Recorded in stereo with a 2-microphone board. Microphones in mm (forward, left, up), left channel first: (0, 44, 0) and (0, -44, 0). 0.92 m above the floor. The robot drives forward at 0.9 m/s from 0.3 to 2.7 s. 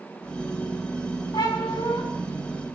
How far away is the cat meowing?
About 4 m.